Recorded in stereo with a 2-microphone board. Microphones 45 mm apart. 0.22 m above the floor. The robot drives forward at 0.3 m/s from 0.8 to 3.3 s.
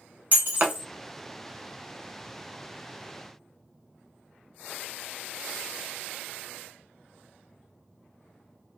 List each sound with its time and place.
0.3 s breaking glass: 45° right (ahead or behind), 0.9 m